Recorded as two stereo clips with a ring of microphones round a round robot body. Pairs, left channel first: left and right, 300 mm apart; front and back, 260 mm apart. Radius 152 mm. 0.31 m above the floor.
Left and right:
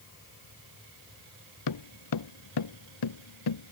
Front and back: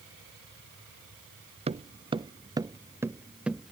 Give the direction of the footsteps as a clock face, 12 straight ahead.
8 o'clock.